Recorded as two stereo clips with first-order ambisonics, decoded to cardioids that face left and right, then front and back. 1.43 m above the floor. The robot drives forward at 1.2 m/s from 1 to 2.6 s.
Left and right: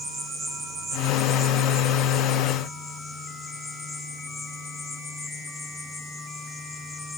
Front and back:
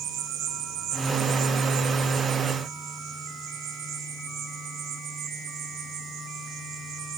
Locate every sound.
0.0 s an insect: 155° right, 0.9 m; by 7.2 s 170° right, 3 m